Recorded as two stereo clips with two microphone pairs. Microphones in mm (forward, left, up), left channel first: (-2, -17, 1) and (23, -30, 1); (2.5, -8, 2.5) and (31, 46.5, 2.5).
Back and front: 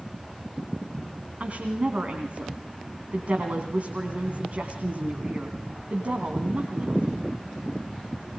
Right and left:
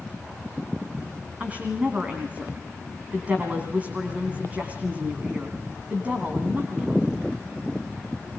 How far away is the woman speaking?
About 2.5 m.